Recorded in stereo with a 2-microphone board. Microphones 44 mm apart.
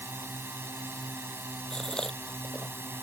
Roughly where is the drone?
Right.